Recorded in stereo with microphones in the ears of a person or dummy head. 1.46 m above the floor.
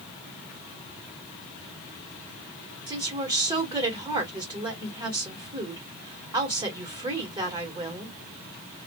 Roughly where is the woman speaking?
Right.